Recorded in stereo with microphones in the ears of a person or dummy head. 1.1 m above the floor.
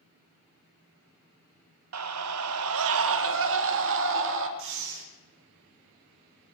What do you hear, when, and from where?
1.9 s a scream: 70° right (ahead or behind), 0.9 m; by 4.5 s 60° right (ahead or behind), 2.5 m
4.6 s breathing: 60° right (ahead or behind), 2.5 m